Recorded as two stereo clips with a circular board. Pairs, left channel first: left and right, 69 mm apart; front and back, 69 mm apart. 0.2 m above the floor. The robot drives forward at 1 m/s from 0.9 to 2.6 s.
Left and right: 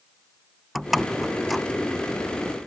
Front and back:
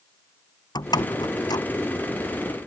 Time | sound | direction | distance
0.8 | a door slam | straight ahead | ?